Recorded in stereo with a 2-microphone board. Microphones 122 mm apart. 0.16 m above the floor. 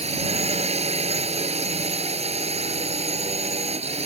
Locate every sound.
0.0 s a drone: 60° right (ahead or behind)